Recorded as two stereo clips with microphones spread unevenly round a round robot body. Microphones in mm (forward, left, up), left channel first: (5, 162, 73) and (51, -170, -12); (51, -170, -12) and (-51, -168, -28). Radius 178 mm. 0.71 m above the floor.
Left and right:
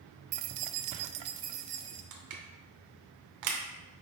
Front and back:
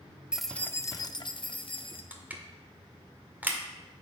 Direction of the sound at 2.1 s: 110° right.